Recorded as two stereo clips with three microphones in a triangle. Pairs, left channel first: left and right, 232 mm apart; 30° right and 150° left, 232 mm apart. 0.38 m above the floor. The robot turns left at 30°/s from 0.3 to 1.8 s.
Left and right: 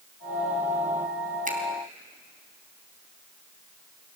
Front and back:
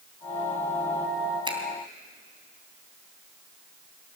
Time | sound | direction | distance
1.4 | a finger snap | 140° right | 3.5 m